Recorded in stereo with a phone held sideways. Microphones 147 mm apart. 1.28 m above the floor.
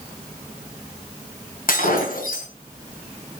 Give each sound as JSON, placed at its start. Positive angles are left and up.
{"t": 1.7, "sound": "breaking glass", "side_deg": 75, "distance_m": 3.5}